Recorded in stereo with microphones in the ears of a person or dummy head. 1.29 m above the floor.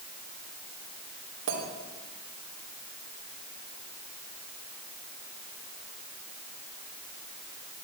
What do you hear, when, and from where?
1.5 s a clink: 75° right (ahead or behind), 2.5 m